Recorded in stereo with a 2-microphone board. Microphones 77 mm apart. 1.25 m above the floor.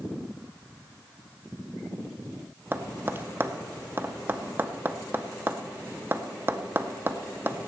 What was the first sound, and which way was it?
Tapping, 30° right (ahead or behind).